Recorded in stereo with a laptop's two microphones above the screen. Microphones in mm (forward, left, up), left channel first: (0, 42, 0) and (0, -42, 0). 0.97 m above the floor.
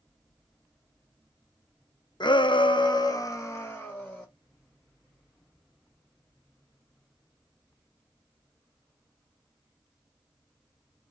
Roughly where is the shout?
Left.